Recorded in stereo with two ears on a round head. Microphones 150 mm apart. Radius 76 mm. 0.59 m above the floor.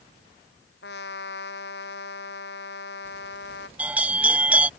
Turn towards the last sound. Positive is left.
turn(degrees=-10)  # may be behind; listen again after turning